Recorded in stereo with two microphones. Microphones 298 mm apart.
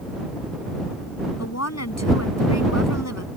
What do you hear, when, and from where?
1.4 s a woman speaking: 60° left (ahead or behind)